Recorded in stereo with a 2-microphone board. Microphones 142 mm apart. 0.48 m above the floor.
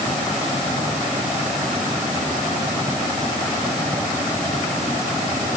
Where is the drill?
I don't hear a drill.